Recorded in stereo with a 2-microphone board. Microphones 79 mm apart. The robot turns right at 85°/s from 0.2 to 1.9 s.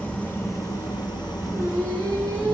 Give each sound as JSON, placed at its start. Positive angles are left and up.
{"t": 0.0, "sound": "an engine running", "azimuth_deg": 15, "distance_m": 0.9}
{"t": 1.5, "sound": "singing", "azimuth_deg": -155, "distance_m": 1.5}